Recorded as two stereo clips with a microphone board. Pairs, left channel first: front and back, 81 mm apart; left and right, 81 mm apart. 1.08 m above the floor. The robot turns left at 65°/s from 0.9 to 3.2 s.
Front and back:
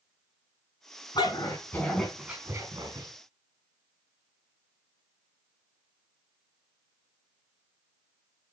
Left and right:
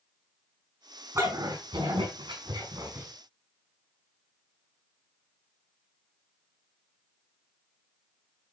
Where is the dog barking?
35° right, 5 m; by 3.1 s 160° right, 5 m.